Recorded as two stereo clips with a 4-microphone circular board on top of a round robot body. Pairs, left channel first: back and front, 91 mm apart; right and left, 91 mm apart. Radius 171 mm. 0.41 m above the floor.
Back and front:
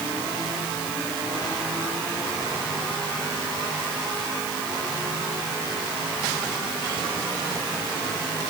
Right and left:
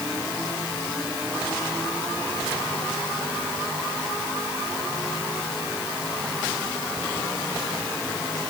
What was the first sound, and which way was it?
Only background noise.